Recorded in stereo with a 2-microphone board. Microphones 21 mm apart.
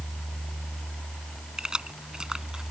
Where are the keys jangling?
40° right (ahead or behind).